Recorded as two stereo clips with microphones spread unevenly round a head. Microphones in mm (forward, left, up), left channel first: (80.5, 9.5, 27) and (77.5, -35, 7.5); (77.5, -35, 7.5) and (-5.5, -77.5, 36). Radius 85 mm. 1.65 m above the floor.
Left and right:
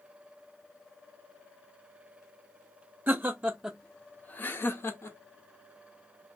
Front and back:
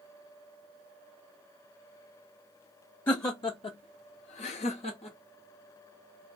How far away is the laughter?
About 0.7 m.